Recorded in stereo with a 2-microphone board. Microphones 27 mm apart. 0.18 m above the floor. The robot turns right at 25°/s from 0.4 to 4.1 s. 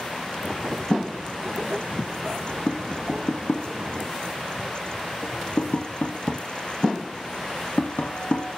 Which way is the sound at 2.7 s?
40° left (ahead or behind).